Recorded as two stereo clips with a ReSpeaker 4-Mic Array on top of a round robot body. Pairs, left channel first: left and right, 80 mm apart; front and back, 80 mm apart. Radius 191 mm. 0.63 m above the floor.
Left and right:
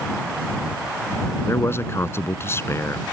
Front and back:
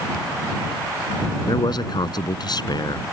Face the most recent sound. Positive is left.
turn(degrees=30)